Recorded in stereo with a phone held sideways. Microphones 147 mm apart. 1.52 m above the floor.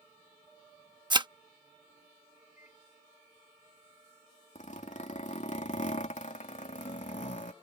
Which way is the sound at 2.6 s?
55° left (ahead or behind).